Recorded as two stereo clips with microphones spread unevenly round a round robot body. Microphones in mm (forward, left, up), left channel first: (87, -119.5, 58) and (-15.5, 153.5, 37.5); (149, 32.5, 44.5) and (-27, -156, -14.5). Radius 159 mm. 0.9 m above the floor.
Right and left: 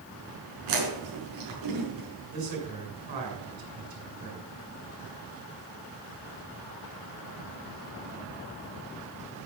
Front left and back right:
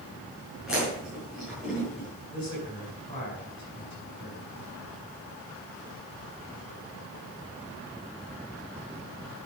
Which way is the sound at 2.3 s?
125° left.